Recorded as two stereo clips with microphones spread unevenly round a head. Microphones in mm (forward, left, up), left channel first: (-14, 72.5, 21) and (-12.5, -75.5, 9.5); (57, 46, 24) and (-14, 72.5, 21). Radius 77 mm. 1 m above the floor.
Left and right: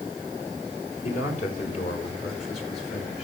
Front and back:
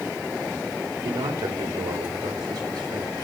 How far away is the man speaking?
About 4 m.